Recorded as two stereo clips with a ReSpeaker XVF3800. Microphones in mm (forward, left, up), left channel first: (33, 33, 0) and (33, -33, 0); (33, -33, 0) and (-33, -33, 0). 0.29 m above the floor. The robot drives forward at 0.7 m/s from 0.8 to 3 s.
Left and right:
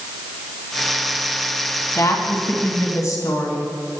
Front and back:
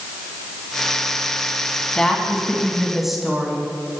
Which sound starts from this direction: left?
A woman speaking, at 1.9 s.